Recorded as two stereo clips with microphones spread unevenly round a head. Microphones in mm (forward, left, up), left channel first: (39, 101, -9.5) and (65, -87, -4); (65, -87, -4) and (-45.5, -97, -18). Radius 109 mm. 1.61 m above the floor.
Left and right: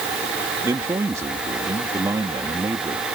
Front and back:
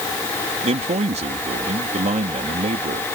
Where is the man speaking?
160° right.